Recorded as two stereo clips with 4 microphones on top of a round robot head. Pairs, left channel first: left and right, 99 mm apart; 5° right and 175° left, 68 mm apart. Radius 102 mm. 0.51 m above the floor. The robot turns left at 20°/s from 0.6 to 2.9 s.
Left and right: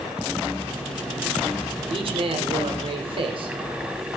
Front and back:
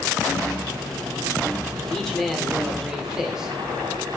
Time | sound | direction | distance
1.9 | a man speaking | 85° right | 2 m